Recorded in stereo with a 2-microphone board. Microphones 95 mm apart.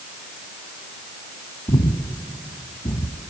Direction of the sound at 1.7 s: 45° left (ahead or behind).